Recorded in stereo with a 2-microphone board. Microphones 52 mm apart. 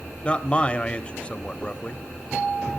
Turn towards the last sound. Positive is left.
turn(degrees=25)  # may be behind; listen again after turning